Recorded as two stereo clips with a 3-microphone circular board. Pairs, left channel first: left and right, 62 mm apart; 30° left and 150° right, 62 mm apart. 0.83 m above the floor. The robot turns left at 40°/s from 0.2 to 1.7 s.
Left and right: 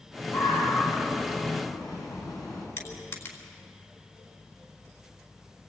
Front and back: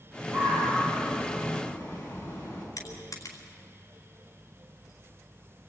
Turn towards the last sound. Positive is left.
turn(degrees=55)